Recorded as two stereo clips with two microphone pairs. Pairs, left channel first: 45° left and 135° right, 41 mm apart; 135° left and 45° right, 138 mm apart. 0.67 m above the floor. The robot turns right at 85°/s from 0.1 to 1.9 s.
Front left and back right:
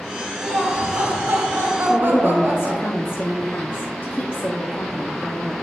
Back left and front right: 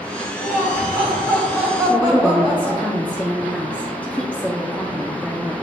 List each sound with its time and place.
0.4 s laughter: 115° left, 3 m; by 2.9 s 115° right, 3 m
1.9 s a woman speaking: 55° left, 0.8 m